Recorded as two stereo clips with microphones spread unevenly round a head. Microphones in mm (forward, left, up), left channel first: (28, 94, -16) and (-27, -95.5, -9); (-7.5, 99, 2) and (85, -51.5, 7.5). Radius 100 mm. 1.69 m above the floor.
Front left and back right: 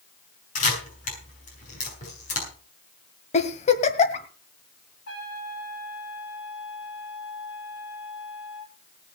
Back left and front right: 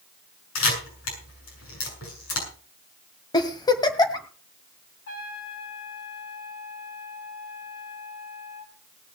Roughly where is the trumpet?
Left.